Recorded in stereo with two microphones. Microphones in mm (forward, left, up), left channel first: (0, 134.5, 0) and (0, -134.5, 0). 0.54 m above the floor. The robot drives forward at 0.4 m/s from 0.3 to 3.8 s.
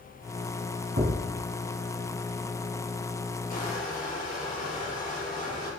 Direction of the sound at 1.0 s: 50° right (ahead or behind).